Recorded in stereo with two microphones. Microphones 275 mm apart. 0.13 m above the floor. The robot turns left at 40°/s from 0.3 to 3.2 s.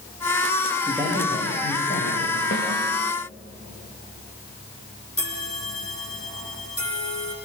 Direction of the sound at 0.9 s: 165° right.